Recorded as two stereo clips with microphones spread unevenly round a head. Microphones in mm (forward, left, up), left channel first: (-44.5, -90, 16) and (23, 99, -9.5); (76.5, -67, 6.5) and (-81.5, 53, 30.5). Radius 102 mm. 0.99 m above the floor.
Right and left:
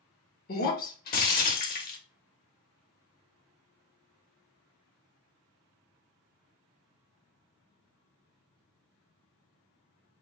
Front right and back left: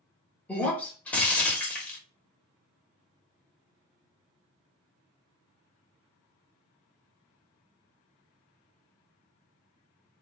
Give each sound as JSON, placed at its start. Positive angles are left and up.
{"t": 0.5, "sound": "breaking glass", "azimuth_deg": -125, "distance_m": 0.9}